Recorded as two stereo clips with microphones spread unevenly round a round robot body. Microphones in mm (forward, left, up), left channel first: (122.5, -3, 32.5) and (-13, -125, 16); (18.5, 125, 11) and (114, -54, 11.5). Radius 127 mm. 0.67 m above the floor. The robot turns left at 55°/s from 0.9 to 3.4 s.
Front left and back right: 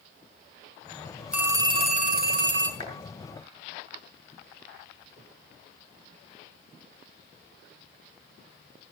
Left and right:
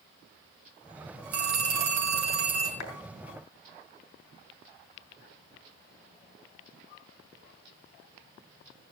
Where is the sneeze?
No sneeze in this recording.